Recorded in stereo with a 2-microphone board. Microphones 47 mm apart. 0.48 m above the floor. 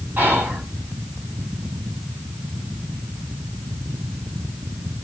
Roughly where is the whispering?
Right.